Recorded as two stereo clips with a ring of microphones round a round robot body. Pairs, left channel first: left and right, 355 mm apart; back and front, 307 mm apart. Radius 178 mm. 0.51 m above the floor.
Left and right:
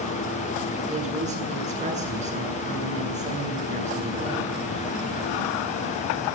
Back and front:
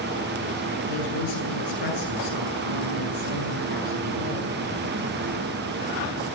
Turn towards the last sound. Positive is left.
turn(degrees=-160)